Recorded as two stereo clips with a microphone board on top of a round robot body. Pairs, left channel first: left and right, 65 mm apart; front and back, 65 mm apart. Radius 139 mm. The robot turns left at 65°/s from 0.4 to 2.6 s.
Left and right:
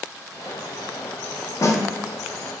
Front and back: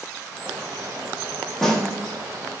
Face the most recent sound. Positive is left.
turn(degrees=20)